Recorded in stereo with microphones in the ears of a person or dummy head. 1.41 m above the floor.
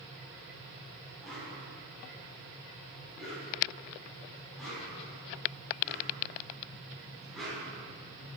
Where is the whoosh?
Centre (ahead or behind), 4.5 m.